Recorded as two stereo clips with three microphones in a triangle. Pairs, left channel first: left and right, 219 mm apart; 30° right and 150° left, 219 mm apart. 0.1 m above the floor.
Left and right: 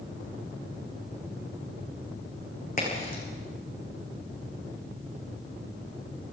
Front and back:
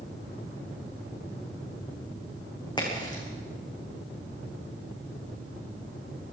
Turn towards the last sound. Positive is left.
turn(degrees=40)